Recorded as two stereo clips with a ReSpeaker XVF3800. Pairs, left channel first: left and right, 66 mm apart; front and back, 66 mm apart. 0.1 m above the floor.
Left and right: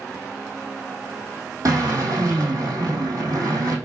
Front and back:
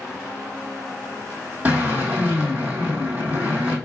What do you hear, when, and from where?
1.6 s a drill: 115° right, 2.5 m